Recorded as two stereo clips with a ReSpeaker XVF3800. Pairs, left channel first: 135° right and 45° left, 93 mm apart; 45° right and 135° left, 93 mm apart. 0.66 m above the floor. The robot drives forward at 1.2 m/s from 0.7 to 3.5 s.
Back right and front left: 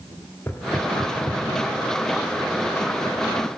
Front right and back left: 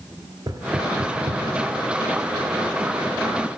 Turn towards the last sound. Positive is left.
turn(degrees=175)